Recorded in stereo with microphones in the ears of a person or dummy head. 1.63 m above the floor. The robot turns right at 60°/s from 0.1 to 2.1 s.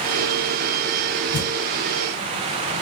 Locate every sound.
1.3 s a thud: 35° right (ahead or behind), 2.5 m; by 1.5 s 45° right (ahead or behind), 2.5 m